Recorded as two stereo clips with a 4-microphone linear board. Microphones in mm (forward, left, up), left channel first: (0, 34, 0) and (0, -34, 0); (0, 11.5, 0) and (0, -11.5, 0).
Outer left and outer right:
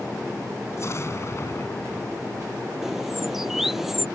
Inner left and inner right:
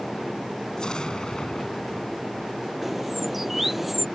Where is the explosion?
45° left (ahead or behind).